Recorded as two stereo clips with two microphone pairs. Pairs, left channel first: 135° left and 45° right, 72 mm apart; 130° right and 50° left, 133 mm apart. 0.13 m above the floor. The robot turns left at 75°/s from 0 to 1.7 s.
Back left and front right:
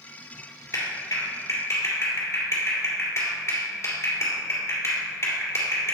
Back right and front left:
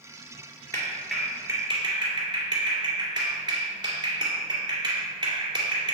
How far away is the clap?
About 1.9 m.